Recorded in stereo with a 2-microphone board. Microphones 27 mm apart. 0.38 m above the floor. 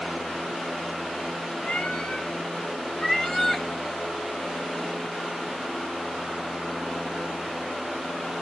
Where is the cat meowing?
45° left (ahead or behind), 1.9 m; by 3.6 s 5° left (ahead or behind), 1.3 m.